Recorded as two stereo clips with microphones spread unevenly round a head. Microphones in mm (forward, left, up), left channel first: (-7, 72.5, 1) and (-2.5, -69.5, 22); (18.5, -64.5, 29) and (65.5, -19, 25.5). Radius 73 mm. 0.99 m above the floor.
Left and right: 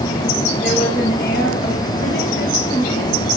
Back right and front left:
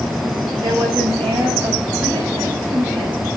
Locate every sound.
0.6 s a woman speaking: 65° left, 6.5 m